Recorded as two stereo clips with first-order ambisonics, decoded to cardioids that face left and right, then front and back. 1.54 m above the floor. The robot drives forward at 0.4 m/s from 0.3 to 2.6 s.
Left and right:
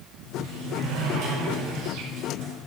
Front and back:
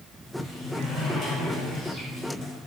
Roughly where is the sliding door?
Right.